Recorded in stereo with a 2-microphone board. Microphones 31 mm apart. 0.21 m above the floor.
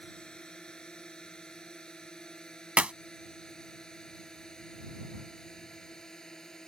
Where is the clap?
40° right (ahead or behind).